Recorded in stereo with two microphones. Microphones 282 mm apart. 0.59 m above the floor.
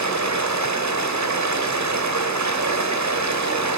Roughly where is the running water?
Right.